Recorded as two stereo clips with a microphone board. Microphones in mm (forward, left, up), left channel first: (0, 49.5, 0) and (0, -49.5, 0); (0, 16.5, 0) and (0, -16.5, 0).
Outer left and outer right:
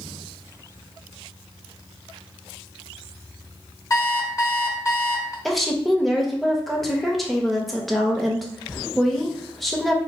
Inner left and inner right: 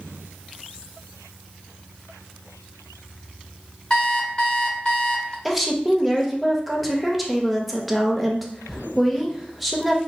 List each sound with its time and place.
3.9 s an alarm clock: 30° left (ahead or behind), 0.8 m
5.5 s a woman speaking: centre (ahead or behind), 0.5 m